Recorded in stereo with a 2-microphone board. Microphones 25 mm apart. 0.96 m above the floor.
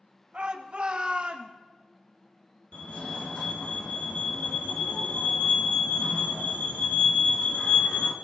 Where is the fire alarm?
50° left (ahead or behind), 2.5 m.